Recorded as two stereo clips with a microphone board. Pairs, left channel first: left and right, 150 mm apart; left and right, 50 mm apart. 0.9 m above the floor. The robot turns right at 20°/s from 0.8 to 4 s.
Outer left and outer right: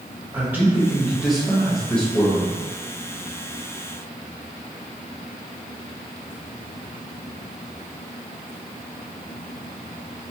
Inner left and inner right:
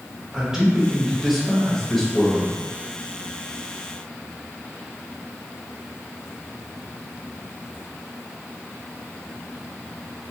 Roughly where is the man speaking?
Ahead.